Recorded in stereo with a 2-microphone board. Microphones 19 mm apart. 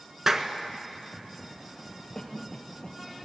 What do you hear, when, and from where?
0.3 s a clap: 30° right (ahead or behind), 1.6 m
2.1 s a cough: 30° left (ahead or behind), 3 m